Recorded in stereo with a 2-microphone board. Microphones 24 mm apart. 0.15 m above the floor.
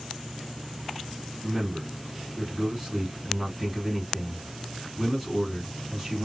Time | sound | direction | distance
1.4 | a man speaking | 20° right (ahead or behind) | 1.5 m